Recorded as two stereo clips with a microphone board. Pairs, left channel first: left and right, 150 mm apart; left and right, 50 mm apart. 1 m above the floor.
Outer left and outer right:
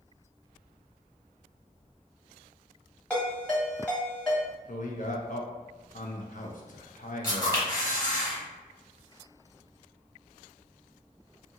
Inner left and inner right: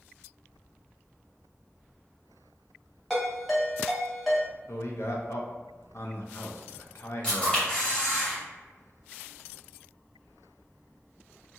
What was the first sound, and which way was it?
A ringtone, 5° left (ahead or behind).